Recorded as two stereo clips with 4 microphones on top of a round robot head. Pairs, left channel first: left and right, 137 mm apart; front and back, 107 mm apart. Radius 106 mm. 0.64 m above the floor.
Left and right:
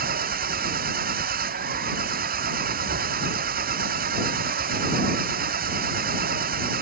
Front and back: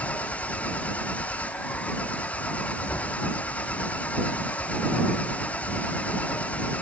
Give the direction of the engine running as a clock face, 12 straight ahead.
3 o'clock.